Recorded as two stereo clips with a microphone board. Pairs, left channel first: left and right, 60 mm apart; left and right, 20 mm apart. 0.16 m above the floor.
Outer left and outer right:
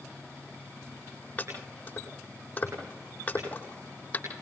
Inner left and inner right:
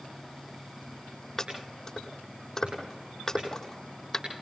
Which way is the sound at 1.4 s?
25° left (ahead or behind).